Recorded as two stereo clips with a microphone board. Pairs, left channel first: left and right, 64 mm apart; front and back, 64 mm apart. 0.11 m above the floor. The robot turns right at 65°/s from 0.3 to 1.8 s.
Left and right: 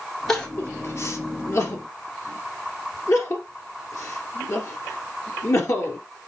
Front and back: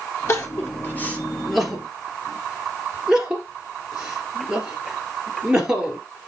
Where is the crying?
10° left, 2 m; by 6.0 s 110° left, 2 m.